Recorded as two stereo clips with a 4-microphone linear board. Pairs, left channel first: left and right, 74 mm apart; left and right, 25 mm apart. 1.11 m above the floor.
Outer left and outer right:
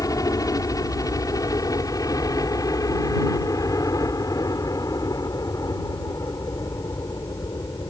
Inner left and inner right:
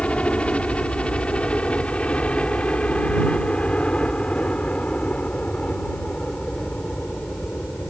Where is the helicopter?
50° left (ahead or behind).